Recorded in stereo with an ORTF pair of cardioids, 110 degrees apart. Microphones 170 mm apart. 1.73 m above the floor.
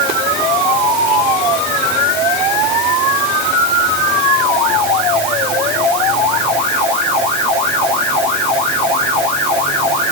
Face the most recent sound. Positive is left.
No sound to turn to.